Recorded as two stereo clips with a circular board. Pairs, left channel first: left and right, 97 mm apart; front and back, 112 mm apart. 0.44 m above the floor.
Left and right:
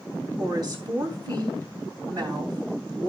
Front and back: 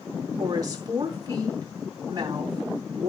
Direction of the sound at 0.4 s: 130° right.